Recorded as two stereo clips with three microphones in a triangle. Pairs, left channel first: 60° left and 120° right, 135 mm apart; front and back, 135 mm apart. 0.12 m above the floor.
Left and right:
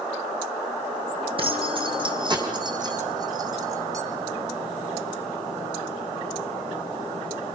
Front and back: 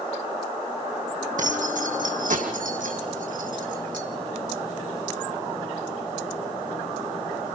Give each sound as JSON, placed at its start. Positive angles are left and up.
{"t": 1.4, "sound": "keys jangling", "azimuth_deg": -165, "distance_m": 4.0}